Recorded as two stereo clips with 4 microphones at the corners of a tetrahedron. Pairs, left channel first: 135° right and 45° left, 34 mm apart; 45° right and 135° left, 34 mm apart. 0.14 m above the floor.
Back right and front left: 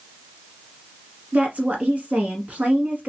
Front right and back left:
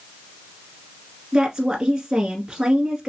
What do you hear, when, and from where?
1.3 s a woman speaking: 65° left, 1.4 m